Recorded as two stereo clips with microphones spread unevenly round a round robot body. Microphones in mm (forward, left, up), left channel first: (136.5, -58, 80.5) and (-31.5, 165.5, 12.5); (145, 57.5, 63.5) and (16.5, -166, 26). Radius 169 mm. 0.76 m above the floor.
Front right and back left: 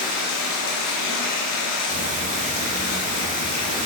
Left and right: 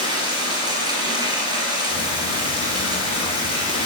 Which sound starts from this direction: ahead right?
Running water, at 0.0 s.